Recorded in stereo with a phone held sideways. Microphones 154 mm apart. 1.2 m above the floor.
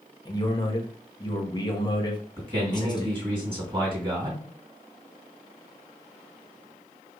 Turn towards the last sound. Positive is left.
turn(degrees=-30)  # may be behind; listen again after turning